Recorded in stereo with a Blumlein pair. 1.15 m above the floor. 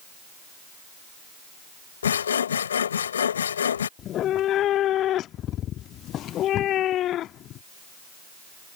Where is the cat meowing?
30° left.